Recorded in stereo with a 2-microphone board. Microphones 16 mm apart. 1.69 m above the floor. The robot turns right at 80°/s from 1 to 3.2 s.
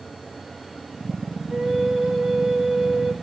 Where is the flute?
145° right, 2.5 m; by 3.1 s 15° right, 2.5 m.